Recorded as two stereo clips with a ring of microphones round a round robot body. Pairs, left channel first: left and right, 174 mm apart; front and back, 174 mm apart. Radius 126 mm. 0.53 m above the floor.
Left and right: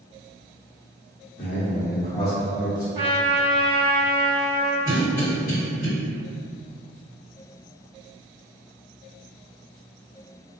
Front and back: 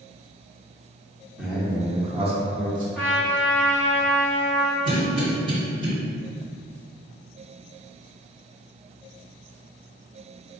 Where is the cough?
125° left, 2.0 m.